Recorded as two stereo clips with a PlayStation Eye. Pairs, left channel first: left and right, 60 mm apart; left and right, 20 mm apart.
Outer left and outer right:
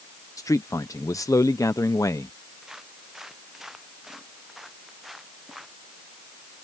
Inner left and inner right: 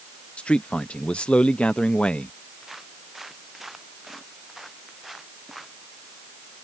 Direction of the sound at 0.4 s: 70° left (ahead or behind).